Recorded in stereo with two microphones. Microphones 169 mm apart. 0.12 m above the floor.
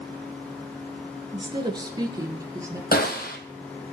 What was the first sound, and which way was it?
A woman speaking, 30° right (ahead or behind).